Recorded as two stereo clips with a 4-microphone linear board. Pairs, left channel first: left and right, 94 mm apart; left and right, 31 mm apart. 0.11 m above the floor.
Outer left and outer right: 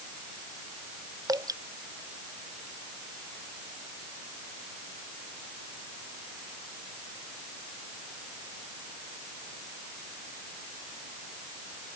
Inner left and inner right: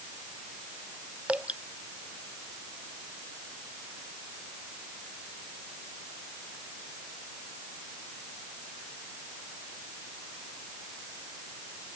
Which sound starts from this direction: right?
Dripping, at 1.3 s.